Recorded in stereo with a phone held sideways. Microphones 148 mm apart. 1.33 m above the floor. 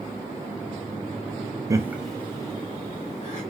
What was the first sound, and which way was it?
Laughter, 20° right (ahead or behind).